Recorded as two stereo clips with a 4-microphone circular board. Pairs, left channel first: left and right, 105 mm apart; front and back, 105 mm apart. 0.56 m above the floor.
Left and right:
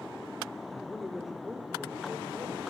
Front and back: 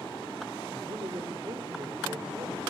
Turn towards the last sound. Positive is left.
turn(degrees=-160)